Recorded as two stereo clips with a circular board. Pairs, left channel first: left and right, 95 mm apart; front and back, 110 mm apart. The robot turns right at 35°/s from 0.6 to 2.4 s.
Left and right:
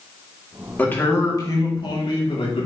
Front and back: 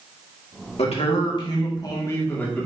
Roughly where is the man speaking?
Ahead.